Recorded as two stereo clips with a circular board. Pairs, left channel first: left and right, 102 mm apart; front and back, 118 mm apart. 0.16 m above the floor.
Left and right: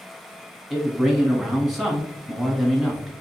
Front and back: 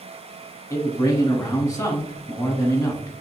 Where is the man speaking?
Straight ahead, 1.1 m.